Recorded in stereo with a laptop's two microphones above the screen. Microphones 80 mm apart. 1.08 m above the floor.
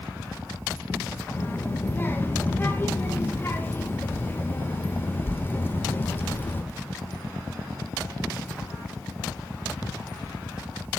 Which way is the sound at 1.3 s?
25° left (ahead or behind).